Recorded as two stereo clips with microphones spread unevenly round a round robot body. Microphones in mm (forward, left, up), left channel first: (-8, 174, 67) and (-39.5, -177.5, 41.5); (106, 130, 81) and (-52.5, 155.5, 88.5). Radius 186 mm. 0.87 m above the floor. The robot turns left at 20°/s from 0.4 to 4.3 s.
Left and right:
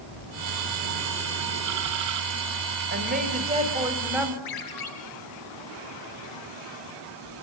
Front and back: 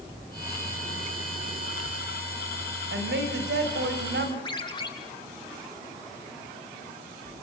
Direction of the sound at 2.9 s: 155° right.